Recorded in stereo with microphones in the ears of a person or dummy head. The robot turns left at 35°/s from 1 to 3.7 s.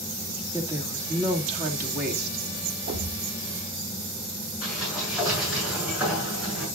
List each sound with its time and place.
0.5 s a woman speaking: 20° right, 2.5 m; by 2.4 s 65° right, 2.5 m
2.9 s a thud: 60° right (ahead or behind), 1.9 m; by 3.3 s 70° right (ahead or behind), 1.9 m
4.6 s a sliding door: 5° right (ahead or behind), 7.5 m